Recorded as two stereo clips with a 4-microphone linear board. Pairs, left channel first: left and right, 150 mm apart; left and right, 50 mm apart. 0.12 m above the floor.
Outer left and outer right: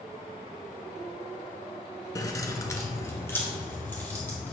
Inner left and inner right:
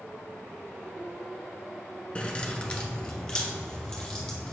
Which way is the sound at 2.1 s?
25° left (ahead or behind).